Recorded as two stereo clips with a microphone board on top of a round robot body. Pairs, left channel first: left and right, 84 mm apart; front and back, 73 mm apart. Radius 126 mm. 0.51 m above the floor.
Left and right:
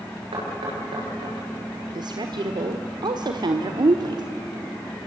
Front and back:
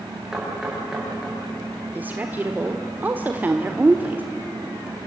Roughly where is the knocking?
Right.